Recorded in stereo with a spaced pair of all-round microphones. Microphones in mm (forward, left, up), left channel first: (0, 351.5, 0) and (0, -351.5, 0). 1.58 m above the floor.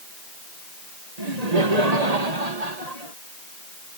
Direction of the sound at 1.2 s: 65° right (ahead or behind).